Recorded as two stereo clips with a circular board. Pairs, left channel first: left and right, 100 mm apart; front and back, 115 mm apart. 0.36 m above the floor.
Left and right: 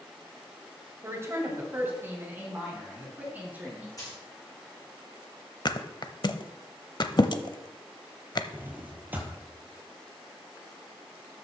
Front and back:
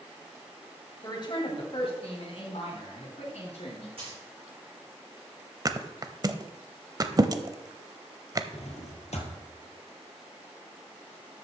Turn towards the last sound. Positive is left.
turn(degrees=-15)